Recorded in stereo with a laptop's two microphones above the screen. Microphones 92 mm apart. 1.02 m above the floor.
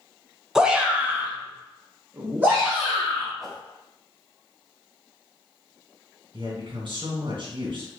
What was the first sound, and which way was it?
A shout, 5° right (ahead or behind).